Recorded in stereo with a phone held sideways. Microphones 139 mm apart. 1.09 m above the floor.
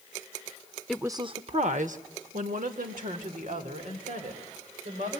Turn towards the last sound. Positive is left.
turn(degrees=-85)